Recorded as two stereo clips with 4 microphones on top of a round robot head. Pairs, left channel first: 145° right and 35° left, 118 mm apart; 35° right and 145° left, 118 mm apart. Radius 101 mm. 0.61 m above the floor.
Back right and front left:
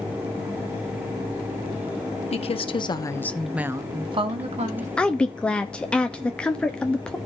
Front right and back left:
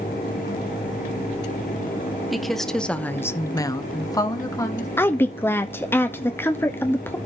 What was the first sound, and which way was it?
A woman speaking, 125° right.